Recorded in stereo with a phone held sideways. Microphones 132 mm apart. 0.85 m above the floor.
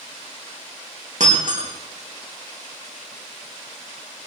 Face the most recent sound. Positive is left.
turn(degrees=-70)  # may be behind; listen again after turning